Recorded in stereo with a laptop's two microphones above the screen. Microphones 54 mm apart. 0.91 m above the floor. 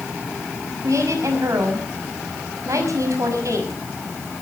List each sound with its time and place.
0.8 s a woman speaking: 75° right (ahead or behind), 6 m